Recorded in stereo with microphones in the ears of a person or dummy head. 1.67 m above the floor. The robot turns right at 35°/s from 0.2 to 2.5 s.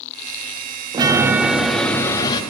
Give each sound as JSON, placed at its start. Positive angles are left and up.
{"t": 0.9, "sound": "a chime", "azimuth_deg": -20, "distance_m": 0.6}